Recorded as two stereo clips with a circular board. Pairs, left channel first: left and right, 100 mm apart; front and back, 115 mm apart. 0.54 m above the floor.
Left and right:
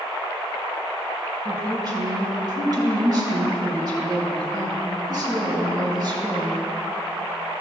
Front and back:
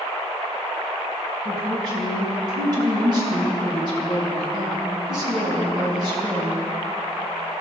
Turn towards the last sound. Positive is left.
turn(degrees=-135)